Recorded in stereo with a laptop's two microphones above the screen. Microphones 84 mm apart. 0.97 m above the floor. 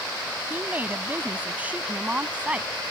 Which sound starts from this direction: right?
A woman speaking, at 0.5 s.